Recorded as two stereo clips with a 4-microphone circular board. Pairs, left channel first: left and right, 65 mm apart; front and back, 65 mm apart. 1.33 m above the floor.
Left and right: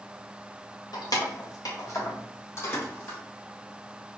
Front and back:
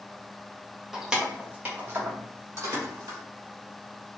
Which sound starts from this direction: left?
Keys jangling, at 0.9 s.